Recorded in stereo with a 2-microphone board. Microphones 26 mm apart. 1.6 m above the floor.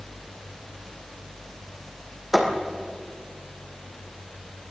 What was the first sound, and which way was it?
A thud, 5° right (ahead or behind).